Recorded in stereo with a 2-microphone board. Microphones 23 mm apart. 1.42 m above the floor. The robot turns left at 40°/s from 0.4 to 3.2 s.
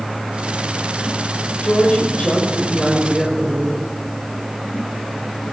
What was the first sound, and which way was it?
A woman speaking, 75° left.